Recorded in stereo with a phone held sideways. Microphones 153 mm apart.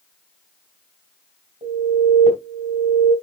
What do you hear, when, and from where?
1.6 s an alarm: 50° right (ahead or behind), 5.5 m